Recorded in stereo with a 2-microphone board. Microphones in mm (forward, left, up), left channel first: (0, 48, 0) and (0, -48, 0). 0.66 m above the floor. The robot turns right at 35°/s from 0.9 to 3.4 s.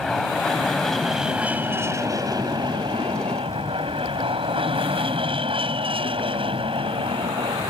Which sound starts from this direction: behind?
An aircraft, at 0.0 s.